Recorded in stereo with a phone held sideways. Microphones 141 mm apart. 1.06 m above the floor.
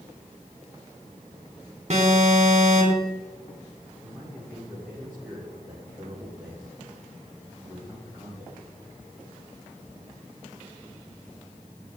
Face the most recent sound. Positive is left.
turn(degrees=-10)  # may be behind; listen again after turning